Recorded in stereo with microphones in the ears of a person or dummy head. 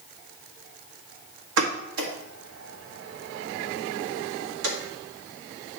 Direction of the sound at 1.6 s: 80° right.